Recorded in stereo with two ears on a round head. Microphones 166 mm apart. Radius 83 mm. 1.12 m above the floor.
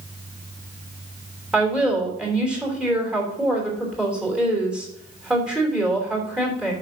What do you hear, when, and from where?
1.5 s a woman speaking: 5° right (ahead or behind), 3 m